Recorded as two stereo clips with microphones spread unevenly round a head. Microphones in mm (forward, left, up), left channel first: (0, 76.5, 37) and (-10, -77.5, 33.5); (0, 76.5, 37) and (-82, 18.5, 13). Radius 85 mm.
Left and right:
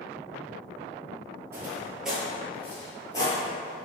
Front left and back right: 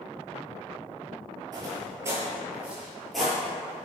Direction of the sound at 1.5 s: 150° right.